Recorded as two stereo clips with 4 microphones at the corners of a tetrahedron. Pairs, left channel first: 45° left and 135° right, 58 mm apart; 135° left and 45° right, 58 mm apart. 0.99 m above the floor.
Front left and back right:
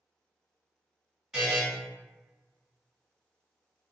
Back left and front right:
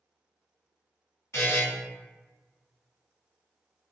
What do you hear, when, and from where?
1.3 s a buzzer: 145° left, 1.6 m